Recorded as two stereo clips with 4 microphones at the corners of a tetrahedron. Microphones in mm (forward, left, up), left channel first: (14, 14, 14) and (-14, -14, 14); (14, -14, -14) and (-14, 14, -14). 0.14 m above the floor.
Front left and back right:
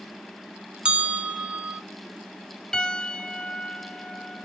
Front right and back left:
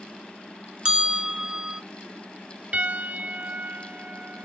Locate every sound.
0.8 s a bell: 175° right, 0.6 m
2.7 s a piano: 110° left, 0.7 m